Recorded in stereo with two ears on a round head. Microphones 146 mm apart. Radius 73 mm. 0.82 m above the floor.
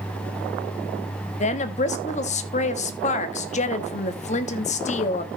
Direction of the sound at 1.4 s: 45° left (ahead or behind).